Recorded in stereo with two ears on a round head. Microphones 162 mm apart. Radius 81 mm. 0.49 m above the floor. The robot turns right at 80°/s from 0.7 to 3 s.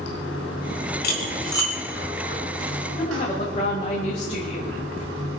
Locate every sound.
0.0 s running water: 80° left, 5 m; by 5.4 s 95° right, 5 m
1.0 s cutlery clinking: 60° left (ahead or behind), 3 m; by 1.7 s 5° left (ahead or behind), 3 m
3.0 s a woman speaking: 30° left (ahead or behind), 2.5 m